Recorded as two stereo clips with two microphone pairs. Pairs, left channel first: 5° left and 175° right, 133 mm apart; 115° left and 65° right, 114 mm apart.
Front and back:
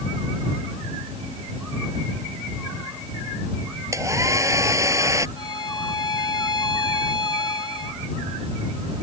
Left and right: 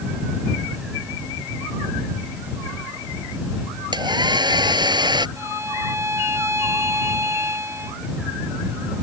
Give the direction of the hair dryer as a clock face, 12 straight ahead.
4 o'clock.